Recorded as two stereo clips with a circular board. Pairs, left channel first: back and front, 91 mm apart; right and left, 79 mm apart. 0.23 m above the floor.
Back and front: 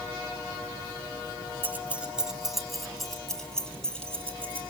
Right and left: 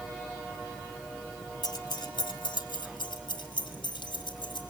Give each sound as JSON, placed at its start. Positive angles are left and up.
{"t": 1.6, "sound": "keys jangling", "azimuth_deg": -65, "distance_m": 1.5}